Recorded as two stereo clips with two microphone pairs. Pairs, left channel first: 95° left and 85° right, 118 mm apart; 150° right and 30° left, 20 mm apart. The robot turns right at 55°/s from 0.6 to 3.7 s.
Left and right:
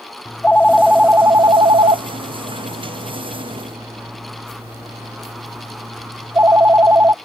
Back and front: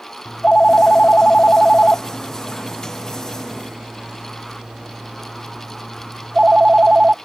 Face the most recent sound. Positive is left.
turn(degrees=-15)